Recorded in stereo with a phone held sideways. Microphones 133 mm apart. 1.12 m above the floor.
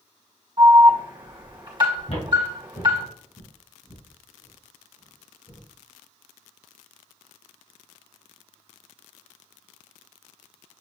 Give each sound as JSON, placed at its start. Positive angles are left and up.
{"t": 0.6, "sound": "an alarm", "side_deg": -35, "distance_m": 1.8}
{"t": 2.1, "sound": "footsteps", "side_deg": 50, "distance_m": 1.7}